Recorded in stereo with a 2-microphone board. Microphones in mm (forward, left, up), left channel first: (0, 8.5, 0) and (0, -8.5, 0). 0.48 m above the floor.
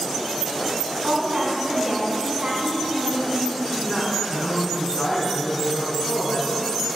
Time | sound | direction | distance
1.0 | a woman speaking | 45° right (ahead or behind) | 5.5 m
3.6 | a woman speaking | 5° left (ahead or behind) | 3.5 m